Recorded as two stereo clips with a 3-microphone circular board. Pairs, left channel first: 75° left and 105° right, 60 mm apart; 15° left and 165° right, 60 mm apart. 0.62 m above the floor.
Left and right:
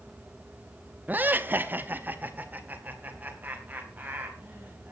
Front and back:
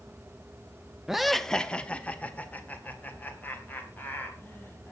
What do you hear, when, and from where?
1.1 s laughter: 90° right, 0.7 m; by 4.9 s 40° right, 4.5 m